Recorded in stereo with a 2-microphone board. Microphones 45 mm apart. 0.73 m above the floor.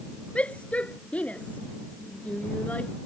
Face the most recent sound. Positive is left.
turn(degrees=30)  # may be behind; listen again after turning